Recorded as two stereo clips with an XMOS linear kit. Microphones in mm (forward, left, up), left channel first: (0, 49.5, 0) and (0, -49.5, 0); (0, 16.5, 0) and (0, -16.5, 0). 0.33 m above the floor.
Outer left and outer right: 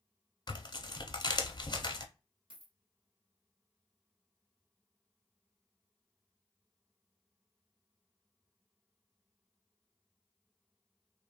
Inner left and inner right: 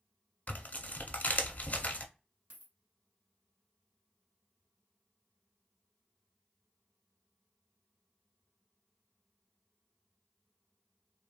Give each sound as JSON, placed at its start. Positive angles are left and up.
{"t": 0.5, "sound": "tearing paper", "side_deg": 45, "distance_m": 0.6}
{"t": 2.5, "sound": "a dropped coin", "side_deg": -55, "distance_m": 1.0}